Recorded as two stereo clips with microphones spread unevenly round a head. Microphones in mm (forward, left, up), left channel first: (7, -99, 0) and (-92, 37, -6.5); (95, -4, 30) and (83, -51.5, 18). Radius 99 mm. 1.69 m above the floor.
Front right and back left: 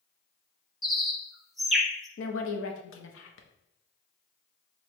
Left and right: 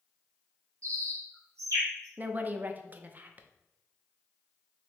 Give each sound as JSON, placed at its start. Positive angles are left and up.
{"t": 0.8, "sound": "a bird", "azimuth_deg": -145, "distance_m": 0.8}
{"t": 2.2, "sound": "a woman speaking", "azimuth_deg": -45, "distance_m": 0.8}